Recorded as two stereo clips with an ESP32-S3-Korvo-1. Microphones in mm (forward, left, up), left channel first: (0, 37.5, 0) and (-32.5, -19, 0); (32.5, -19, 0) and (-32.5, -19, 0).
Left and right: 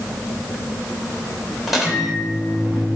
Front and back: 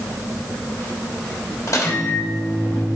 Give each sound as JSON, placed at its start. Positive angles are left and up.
{"t": 1.7, "sound": "a microwave", "azimuth_deg": -35, "distance_m": 3.0}